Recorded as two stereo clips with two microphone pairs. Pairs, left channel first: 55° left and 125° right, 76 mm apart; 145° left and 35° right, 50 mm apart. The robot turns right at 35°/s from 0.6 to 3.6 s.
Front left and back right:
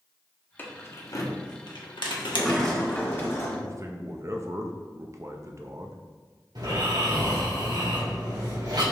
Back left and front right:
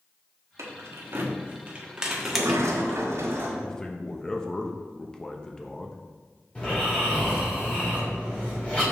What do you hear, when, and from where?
0.6 s keys jangling: 10° right, 1.0 m; by 3.0 s 75° left, 1.0 m
2.2 s a sliding door: 45° right, 1.5 m; by 3.5 s straight ahead, 1.5 m
3.6 s a man speaking: 145° right, 0.7 m
6.5 s snoring: 150° right, 2.5 m